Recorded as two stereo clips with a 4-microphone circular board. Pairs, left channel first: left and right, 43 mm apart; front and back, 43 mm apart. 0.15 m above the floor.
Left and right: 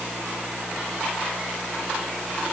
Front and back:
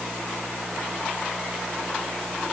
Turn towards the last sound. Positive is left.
No sound to turn to.